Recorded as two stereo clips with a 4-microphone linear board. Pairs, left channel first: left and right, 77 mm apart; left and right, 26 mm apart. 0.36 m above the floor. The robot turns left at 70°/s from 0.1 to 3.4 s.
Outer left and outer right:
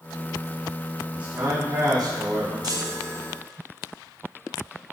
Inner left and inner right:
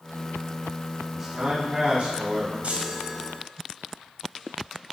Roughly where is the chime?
Right.